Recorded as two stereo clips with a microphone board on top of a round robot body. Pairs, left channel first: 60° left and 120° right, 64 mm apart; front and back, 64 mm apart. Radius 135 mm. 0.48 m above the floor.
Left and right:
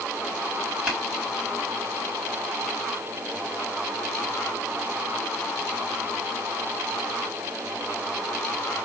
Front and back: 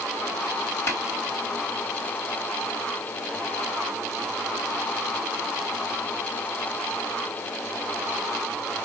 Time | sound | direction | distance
0.9 | tapping | 45° right | 3 m